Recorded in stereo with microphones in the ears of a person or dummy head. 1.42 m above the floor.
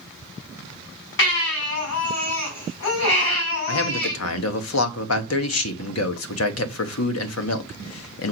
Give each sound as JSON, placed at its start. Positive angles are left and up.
{"t": 1.2, "sound": "a baby crying", "side_deg": 70, "distance_m": 4.0}
{"t": 3.7, "sound": "a man speaking", "side_deg": 75, "distance_m": 1.1}